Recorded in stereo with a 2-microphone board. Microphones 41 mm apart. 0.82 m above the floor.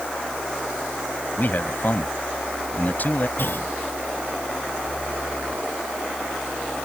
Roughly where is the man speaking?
Left.